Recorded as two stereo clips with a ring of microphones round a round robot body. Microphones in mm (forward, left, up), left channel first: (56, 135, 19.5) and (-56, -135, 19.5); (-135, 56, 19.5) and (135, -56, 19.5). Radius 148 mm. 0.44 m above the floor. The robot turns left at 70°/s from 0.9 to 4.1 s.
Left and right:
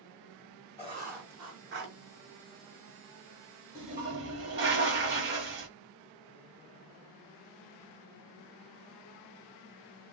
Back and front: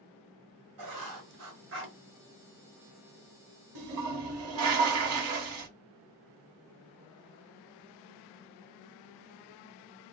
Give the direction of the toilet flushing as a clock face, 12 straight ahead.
1 o'clock.